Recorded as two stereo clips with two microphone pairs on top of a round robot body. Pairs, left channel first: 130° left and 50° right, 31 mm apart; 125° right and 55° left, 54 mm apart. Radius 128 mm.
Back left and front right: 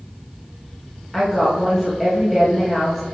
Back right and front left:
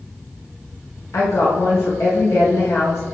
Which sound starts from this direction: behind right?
A woman speaking, at 1.1 s.